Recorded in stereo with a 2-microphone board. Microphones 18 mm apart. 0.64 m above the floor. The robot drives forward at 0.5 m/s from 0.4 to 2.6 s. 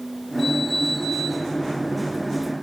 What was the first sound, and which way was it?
Only background noise.